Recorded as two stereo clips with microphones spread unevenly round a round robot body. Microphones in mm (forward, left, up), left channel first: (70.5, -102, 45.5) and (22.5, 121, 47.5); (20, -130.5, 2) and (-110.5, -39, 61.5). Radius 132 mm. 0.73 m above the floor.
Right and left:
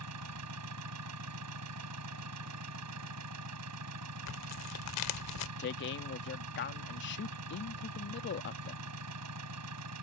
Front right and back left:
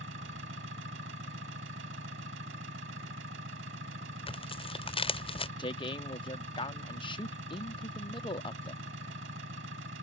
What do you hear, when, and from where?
0.0 s an engine running: 100° left
4.3 s tearing paper: 100° right
5.6 s a man speaking: 65° right